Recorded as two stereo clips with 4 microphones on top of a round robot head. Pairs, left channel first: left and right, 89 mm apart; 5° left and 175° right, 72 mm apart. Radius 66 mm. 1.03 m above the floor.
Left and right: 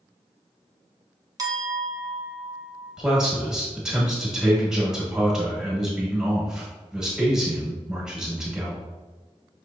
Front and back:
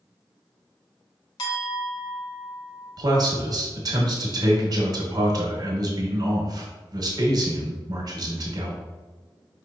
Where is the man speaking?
175° right, 1.4 m.